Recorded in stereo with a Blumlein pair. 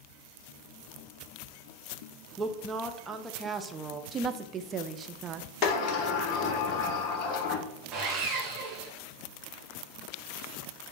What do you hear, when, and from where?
2.4 s a woman speaking: 15° right, 0.8 m
4.1 s a woman speaking: 25° right, 0.6 m
5.6 s a sliding door: 35° left, 1.2 m
7.9 s sawing: 30° right, 2 m